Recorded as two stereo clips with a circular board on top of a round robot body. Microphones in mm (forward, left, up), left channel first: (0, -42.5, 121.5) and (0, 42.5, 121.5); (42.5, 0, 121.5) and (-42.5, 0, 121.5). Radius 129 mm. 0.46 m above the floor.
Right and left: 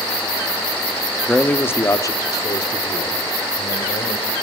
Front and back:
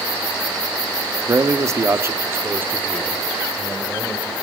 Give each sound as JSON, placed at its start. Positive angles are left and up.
{"t": 1.3, "sound": "a man speaking", "azimuth_deg": -165, "distance_m": 1.1}